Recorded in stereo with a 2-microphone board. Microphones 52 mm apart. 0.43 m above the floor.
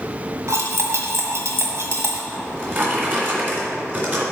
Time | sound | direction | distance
0.5 | cutlery clinking | 60° right (ahead or behind) | 1.5 m
2.3 | a drawer | 40° right (ahead or behind) | 2.5 m